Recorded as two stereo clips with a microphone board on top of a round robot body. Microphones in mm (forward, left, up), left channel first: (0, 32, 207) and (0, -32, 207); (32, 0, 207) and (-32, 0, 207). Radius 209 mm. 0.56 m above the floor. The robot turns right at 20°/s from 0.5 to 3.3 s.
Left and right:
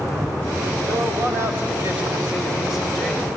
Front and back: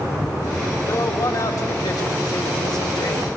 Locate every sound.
0.9 s a man speaking: 45° right, 4 m; by 3.3 s 5° left, 4 m